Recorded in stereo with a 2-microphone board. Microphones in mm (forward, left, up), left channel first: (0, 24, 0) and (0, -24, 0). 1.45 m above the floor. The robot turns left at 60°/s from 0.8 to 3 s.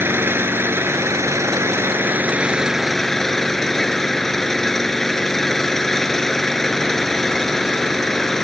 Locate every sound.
0.0 s an engine running: 55° right; by 8.4 s 175° left